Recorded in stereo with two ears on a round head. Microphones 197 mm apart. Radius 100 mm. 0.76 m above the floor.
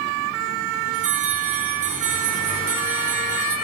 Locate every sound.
0.9 s a bell: 40° right (ahead or behind), 6 m